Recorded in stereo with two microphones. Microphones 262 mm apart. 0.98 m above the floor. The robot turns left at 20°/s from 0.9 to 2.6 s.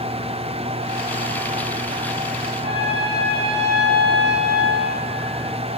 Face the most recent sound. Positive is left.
turn(degrees=-40)  # may be behind; listen again after turning